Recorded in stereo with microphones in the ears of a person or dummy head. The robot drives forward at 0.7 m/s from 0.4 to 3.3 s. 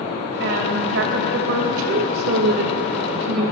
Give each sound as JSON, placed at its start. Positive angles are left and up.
{"t": 0.4, "sound": "a woman speaking", "side_deg": -65, "distance_m": 2.5}